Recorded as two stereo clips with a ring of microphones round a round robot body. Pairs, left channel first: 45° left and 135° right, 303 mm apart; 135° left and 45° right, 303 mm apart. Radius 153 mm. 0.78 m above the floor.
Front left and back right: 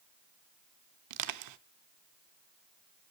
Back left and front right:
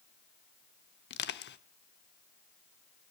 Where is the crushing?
170° right, 0.8 m.